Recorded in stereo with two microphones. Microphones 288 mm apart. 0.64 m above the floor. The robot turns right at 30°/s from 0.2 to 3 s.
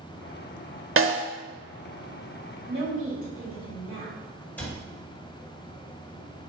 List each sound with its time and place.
1.0 s a snare drum: 55° right (ahead or behind), 0.5 m
2.7 s a woman speaking: 55° right (ahead or behind), 1.2 m; by 4.2 s 50° right (ahead or behind), 1.2 m
4.6 s a cupboard door: 5° left (ahead or behind), 1.6 m